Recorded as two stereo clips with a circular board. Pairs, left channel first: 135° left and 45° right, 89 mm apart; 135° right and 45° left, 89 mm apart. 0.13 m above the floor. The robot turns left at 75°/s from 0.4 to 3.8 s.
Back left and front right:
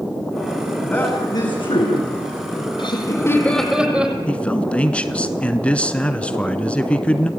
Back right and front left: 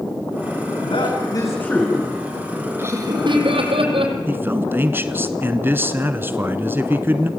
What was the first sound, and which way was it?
A man speaking, 145° right.